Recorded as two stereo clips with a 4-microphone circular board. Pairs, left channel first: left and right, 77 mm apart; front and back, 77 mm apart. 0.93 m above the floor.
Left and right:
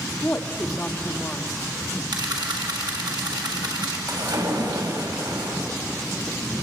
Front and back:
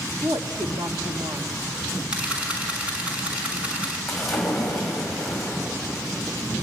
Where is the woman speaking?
155° left, 1.2 m.